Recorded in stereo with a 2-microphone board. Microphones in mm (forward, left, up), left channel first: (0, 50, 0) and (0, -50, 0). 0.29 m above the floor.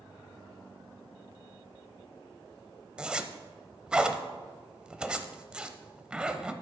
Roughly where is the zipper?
Centre.